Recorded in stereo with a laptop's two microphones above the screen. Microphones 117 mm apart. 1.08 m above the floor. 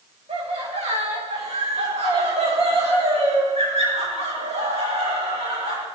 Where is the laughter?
75° right (ahead or behind), 8 m.